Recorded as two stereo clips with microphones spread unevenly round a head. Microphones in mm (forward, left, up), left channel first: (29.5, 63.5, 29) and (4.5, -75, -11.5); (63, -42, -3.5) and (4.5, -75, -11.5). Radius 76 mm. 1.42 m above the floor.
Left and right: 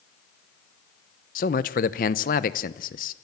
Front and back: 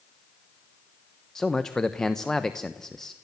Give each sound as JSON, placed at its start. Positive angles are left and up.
{"t": 1.4, "sound": "a man speaking", "azimuth_deg": 115, "distance_m": 0.9}